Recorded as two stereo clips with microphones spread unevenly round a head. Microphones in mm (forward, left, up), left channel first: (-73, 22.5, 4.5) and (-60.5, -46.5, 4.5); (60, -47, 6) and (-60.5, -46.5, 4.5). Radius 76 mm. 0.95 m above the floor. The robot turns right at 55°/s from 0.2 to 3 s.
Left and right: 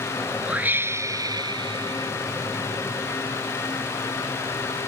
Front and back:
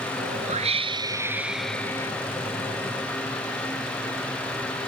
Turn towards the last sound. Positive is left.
turn(degrees=-15)